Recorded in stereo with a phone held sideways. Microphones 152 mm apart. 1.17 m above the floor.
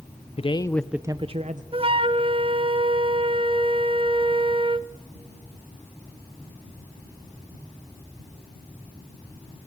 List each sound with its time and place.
0.4 s a man speaking: 40° left (ahead or behind), 0.7 m; by 1.6 s 50° right (ahead or behind), 0.9 m
1.7 s a flute: 35° right (ahead or behind), 0.6 m